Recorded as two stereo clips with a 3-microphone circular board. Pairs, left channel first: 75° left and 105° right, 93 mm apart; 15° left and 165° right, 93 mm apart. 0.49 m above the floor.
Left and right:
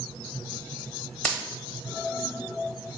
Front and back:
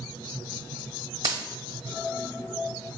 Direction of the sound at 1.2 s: 150° left.